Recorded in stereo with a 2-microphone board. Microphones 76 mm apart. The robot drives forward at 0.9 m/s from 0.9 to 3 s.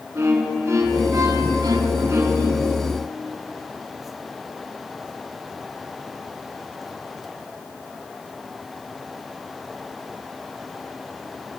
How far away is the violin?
About 0.8 m.